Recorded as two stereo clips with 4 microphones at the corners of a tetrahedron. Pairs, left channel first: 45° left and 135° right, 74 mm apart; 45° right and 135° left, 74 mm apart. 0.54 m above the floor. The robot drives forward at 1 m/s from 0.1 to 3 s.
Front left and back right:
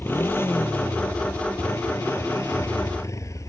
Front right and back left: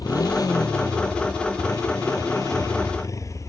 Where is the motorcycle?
15° right; by 3.5 s straight ahead.